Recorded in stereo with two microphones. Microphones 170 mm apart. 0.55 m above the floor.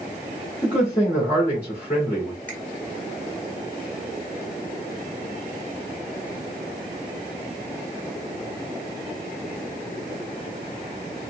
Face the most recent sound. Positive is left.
turn(degrees=10)  # may be behind; listen again after turning